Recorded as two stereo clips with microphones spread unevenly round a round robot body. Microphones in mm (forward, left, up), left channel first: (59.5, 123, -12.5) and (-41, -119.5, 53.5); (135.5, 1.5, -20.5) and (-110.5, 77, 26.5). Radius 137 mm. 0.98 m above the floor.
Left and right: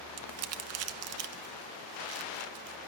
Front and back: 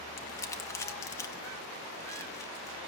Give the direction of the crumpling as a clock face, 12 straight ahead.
3 o'clock.